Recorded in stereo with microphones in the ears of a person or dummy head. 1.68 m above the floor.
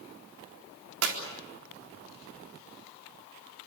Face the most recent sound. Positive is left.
turn(degrees=-80)